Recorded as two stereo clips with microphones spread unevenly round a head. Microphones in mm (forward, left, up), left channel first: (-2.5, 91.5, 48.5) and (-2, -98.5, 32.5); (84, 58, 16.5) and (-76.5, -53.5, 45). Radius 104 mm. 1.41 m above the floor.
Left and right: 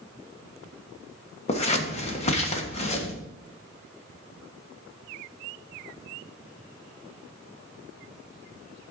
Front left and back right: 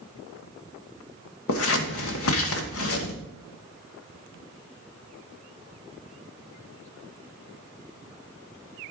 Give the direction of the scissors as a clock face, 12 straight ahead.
11 o'clock.